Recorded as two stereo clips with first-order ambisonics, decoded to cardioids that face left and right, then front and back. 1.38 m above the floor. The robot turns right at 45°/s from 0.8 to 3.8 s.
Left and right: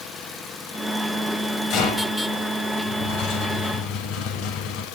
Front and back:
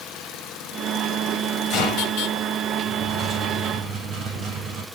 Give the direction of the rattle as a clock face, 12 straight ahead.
10 o'clock.